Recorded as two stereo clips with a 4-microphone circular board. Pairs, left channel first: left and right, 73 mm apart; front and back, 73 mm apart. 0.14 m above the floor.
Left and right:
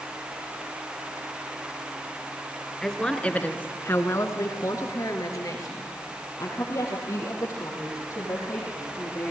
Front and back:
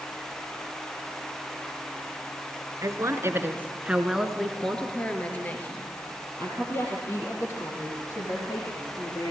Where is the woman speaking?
170° left, 2 m; by 9.3 s 45° left, 7 m.